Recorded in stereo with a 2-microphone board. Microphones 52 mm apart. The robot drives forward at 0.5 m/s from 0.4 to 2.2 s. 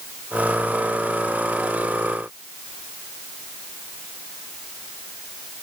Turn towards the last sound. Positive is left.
No sound to turn to.